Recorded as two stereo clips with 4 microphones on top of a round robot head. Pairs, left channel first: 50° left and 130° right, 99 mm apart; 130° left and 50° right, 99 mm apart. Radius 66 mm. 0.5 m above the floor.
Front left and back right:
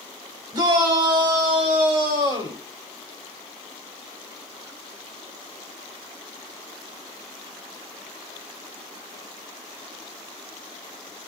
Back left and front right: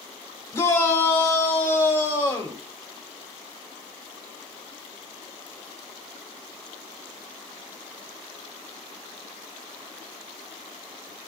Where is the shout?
170° right, 3 m; by 2.6 s 165° right, 4.5 m.